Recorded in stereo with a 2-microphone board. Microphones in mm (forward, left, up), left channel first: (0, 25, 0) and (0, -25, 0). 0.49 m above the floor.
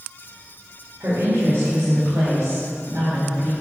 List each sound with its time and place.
1.0 s a woman speaking: 50° right (ahead or behind), 2 m